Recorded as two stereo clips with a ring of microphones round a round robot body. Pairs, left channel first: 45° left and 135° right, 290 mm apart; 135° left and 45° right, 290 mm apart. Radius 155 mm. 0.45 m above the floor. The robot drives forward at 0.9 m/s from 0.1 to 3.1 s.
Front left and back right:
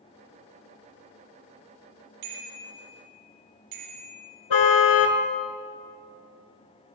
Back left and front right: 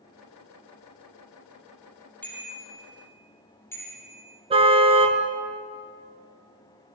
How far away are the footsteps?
I don't hear footsteps.